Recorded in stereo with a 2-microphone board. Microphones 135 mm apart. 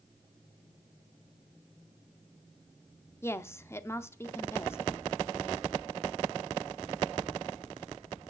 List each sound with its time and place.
3.2 s a woman speaking: 20° left (ahead or behind), 0.7 m